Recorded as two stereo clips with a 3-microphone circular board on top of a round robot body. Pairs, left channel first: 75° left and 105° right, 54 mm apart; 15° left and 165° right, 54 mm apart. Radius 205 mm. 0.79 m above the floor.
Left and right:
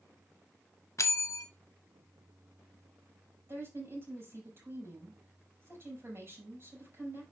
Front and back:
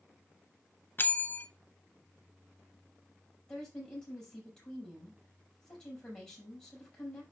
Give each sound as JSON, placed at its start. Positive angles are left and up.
{"t": 1.0, "sound": "a bell", "azimuth_deg": 65, "distance_m": 1.0}
{"t": 3.5, "sound": "a woman speaking", "azimuth_deg": -60, "distance_m": 5.5}